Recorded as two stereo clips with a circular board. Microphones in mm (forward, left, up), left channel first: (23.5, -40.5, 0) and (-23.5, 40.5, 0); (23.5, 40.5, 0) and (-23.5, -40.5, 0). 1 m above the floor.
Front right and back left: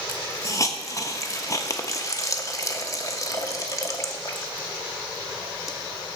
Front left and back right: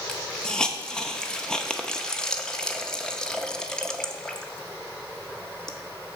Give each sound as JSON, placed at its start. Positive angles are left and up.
{"t": 0.1, "sound": "a hiss", "azimuth_deg": -20, "distance_m": 0.6}